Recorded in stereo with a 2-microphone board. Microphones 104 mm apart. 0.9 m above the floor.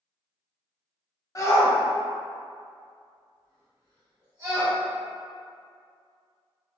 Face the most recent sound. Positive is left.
turn(degrees=-35)  # may be behind; listen again after turning